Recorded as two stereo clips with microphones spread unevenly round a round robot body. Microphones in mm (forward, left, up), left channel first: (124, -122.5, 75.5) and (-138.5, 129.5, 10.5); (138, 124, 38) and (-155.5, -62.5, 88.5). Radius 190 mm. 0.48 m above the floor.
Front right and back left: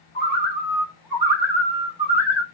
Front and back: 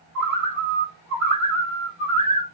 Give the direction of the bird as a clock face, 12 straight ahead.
2 o'clock.